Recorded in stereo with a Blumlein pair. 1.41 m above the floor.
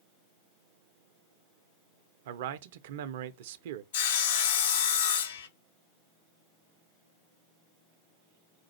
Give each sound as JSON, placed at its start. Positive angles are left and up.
{"t": 2.2, "sound": "a man speaking", "azimuth_deg": -55, "distance_m": 0.6}
{"t": 3.9, "sound": "sawing", "azimuth_deg": 55, "distance_m": 0.6}